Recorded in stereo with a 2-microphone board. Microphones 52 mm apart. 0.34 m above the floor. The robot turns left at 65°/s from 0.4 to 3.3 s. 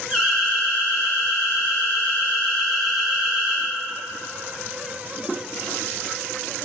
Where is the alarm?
155° left, 1.5 m; by 3.7 s 30° right, 1.5 m.